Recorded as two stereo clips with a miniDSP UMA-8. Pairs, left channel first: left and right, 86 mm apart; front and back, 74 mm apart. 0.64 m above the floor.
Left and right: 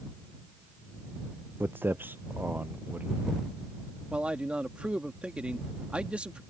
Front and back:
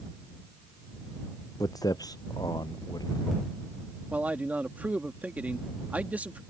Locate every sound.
1.6 s footsteps: 25° right; by 3.4 s 20° right
4.1 s a man speaking: 150° right